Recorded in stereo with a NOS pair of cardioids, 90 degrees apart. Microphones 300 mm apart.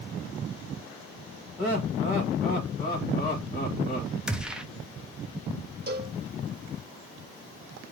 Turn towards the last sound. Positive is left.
turn(degrees=-35)